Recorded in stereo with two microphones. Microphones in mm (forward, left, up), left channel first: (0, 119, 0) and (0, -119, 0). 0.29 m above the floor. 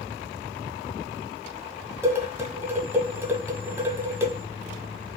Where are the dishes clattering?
10° right (ahead or behind), 1.3 m.